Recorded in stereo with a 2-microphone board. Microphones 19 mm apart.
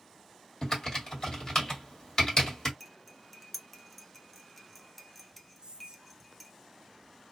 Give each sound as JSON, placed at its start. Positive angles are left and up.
{"t": 0.6, "sound": "typing on a keyboard", "side_deg": 35, "distance_m": 1.6}
{"t": 2.8, "sound": "cutlery clinking", "side_deg": 5, "distance_m": 0.6}
{"t": 5.6, "sound": "whispering", "side_deg": -55, "distance_m": 0.7}